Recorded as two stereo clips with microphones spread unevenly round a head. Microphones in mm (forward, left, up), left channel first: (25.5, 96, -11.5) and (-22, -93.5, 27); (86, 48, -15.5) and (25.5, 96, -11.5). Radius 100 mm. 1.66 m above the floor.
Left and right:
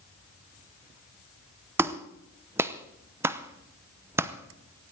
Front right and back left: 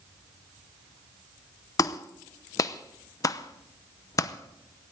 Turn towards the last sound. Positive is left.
turn(degrees=-45)